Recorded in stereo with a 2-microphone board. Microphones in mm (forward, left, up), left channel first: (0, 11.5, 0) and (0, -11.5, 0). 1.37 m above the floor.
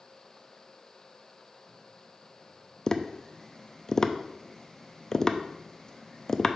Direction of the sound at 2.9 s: 20° left (ahead or behind).